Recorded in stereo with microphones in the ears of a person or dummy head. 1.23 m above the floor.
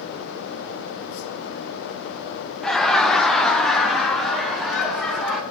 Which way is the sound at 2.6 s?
Centre (ahead or behind).